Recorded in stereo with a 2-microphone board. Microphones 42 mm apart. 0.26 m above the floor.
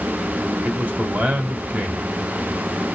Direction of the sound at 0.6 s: 35° right (ahead or behind).